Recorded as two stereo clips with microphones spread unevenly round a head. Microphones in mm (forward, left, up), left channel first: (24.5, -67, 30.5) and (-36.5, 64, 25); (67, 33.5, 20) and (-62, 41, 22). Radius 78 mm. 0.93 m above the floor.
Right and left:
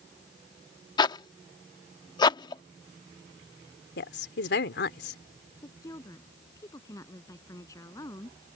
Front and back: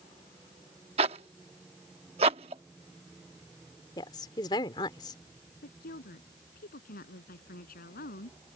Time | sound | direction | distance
1.0 | a zipper | 125° right | ?
4.0 | a woman speaking | 70° right | ?
5.6 | a woman speaking | 5° left | ?